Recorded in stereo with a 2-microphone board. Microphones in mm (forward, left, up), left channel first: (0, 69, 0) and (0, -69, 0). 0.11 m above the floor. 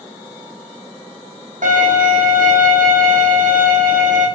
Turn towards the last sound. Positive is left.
turn(degrees=-70)  # may be behind; listen again after turning